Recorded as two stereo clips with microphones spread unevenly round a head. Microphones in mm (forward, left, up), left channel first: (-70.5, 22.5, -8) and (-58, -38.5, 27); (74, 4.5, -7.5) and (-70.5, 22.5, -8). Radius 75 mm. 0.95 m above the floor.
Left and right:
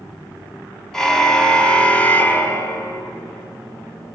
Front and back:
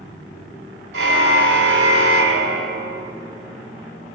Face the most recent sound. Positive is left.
turn(degrees=155)